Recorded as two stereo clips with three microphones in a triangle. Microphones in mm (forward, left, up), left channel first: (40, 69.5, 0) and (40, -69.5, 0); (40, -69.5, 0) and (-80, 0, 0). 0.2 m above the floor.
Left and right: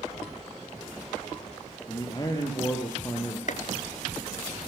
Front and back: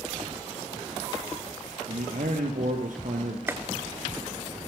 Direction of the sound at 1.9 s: 145° left.